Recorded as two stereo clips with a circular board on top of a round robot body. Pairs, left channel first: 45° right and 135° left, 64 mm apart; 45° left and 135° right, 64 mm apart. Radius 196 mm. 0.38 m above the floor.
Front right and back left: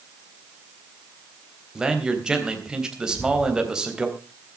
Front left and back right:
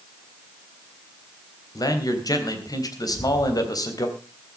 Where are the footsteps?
145° left, 3 m.